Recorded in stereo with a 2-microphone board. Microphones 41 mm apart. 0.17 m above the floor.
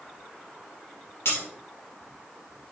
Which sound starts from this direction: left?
Breaking glass, at 1.2 s.